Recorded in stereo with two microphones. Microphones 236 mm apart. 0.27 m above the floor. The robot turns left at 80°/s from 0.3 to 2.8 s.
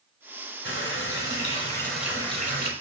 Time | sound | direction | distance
0.7 | a running tap | 105° left | 1.1 m